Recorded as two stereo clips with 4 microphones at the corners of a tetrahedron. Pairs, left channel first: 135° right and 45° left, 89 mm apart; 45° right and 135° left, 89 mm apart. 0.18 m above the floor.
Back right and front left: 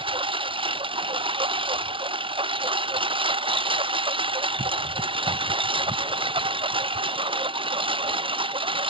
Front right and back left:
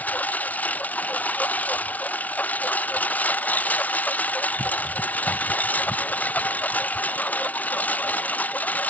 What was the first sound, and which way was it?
A lawn mower, 25° left.